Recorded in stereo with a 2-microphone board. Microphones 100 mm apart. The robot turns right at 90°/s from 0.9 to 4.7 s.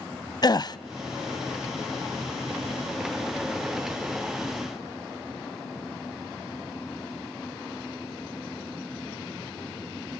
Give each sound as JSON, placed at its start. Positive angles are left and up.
{"t": 0.4, "sound": "a gasp", "side_deg": 45, "distance_m": 0.6}